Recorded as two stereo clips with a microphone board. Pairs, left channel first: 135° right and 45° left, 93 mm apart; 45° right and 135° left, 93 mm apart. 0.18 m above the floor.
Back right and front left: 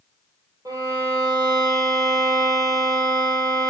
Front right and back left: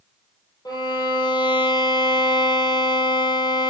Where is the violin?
5° right, 2.5 m.